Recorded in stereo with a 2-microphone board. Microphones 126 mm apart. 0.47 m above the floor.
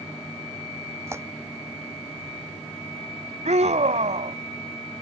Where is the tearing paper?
20° right (ahead or behind).